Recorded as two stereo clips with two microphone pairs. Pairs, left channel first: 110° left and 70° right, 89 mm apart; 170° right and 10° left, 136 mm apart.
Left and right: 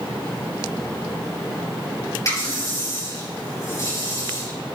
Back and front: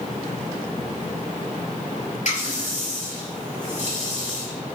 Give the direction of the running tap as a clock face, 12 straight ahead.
7 o'clock.